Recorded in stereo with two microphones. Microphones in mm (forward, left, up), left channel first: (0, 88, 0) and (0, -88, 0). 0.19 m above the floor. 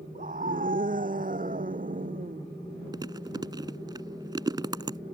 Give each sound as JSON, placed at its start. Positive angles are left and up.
{"t": 0.1, "sound": "a scream", "side_deg": -50}
{"t": 2.9, "sound": "chewing", "side_deg": -25}